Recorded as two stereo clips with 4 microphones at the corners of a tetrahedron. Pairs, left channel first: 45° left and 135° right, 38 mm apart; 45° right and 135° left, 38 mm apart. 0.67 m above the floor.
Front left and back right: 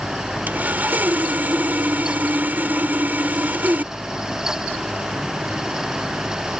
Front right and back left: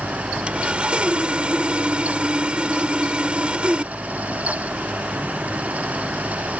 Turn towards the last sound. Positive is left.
turn(degrees=-165)